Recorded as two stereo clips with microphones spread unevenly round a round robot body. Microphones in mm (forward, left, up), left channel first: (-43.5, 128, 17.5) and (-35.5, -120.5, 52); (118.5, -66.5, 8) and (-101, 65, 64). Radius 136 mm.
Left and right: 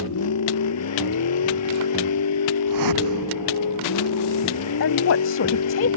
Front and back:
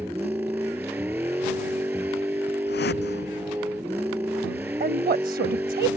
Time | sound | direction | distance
0.0 | a vehicle | 65° left | ?
2.7 | a whoosh | 85° right | ?
4.8 | a woman speaking | 90° left | ?